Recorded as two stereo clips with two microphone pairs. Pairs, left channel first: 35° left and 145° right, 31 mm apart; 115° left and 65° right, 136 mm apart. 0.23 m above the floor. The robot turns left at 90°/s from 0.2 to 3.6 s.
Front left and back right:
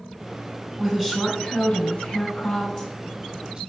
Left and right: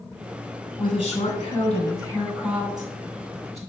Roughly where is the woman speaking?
Behind.